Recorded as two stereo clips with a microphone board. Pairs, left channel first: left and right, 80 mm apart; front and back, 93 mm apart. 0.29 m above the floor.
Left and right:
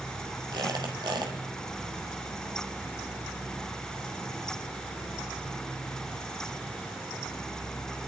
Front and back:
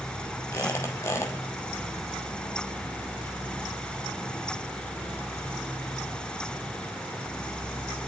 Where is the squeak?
60° right, 3 m.